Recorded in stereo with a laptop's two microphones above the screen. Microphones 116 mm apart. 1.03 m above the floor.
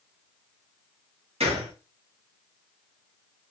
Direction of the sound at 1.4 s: 60° right (ahead or behind).